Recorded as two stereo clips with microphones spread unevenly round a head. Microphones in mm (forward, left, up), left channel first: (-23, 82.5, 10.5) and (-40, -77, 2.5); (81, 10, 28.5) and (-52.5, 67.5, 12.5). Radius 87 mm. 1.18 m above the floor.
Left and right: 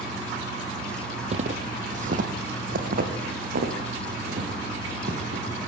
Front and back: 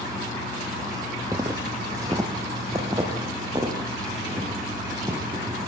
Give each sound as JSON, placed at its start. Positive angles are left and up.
{"t": 1.3, "sound": "footsteps", "azimuth_deg": -130, "distance_m": 1.6}